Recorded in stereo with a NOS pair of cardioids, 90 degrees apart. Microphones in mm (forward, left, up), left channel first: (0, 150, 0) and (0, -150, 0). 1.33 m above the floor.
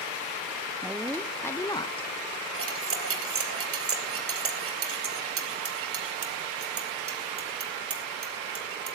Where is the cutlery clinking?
45° right, 3 m.